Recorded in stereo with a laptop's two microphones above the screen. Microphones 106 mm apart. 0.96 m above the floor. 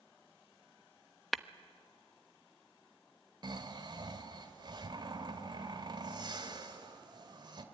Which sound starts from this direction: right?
Snoring, at 3.4 s.